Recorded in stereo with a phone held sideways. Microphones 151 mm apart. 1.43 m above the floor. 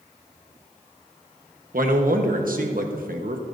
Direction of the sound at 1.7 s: 70° right (ahead or behind).